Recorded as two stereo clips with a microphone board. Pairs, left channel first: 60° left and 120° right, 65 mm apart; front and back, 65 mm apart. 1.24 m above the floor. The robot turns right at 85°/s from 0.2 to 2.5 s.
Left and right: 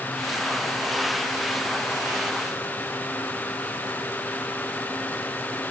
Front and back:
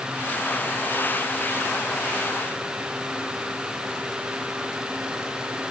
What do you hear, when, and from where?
Only background noise.